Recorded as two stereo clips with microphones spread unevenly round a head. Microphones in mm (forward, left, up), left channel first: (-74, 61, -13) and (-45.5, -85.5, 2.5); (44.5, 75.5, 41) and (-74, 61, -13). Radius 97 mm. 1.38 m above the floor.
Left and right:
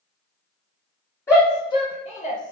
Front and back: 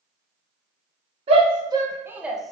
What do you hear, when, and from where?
1.3 s a shout: 170° left, 0.9 m; by 2.5 s 105° left, 0.7 m